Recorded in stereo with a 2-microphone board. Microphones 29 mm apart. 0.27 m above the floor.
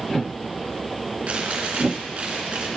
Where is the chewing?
50° right (ahead or behind), 3 m.